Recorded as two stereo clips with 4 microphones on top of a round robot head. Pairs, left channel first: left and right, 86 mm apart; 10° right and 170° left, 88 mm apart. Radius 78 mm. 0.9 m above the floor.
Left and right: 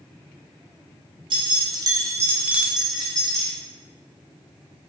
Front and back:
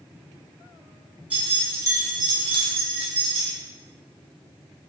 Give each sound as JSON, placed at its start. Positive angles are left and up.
{"t": 1.3, "sound": "keys jangling", "azimuth_deg": -115, "distance_m": 0.9}